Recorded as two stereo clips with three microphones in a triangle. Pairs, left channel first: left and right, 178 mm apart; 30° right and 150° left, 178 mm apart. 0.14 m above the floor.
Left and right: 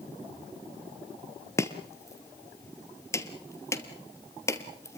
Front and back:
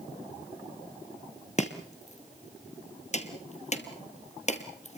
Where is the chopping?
15° left, 1.8 m.